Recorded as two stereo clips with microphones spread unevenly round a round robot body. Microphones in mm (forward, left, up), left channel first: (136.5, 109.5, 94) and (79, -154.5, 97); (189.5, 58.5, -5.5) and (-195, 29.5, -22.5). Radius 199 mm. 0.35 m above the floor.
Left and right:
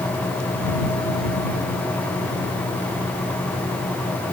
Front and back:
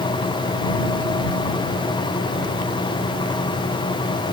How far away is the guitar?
I don't hear a guitar.